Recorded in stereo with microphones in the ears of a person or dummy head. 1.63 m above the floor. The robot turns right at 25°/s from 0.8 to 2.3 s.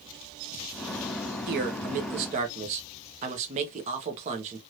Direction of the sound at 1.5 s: 55° right (ahead or behind).